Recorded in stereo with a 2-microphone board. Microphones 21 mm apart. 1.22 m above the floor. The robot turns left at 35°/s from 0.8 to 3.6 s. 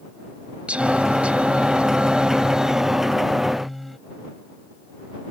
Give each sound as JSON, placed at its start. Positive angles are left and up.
{"t": 0.7, "sound": "singing", "azimuth_deg": -80}